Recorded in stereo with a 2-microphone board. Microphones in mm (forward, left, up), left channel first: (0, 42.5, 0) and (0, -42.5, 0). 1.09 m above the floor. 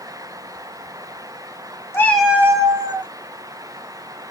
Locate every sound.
1.9 s a cat meowing: 30° left (ahead or behind), 0.7 m; by 3.1 s 60° right (ahead or behind), 1.4 m